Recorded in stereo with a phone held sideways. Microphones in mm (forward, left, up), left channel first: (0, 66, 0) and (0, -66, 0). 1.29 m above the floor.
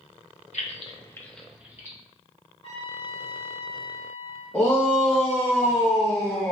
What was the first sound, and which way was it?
Keys jangling, 60° left (ahead or behind).